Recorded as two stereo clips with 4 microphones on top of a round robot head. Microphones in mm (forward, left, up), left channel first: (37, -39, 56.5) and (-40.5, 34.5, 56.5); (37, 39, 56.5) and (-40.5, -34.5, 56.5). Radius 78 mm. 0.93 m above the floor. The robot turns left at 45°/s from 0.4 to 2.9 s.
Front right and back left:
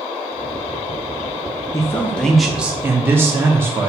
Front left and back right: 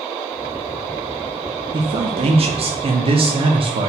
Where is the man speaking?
105° right, 0.5 m; by 3.9 s 155° right, 0.5 m.